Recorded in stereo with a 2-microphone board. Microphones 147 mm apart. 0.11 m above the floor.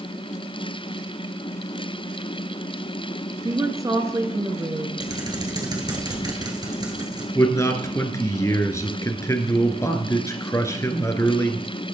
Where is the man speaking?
20° left (ahead or behind), 1.3 m.